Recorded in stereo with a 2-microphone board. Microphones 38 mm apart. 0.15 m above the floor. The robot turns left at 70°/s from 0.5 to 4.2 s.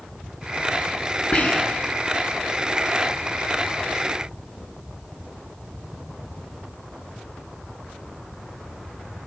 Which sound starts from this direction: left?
Whispering, at 1.3 s.